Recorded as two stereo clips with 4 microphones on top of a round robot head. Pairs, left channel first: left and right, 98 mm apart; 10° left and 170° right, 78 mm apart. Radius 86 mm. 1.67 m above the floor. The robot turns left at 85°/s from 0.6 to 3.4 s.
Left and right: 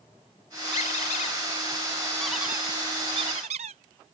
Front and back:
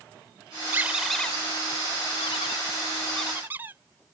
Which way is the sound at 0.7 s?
130° left.